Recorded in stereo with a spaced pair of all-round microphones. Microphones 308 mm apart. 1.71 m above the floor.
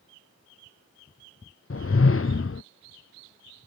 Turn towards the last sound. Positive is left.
turn(degrees=45)  # may be behind; listen again after turning